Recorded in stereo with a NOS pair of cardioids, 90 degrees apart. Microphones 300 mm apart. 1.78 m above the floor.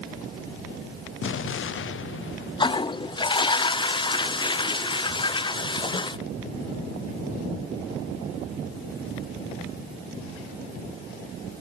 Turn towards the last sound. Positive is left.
turn(degrees=15)